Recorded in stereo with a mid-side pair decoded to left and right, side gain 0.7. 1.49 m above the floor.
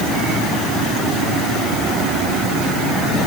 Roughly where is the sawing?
I don't hear sawing.